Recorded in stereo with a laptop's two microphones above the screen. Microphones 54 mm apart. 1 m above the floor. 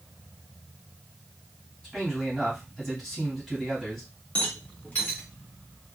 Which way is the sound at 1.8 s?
5° left (ahead or behind).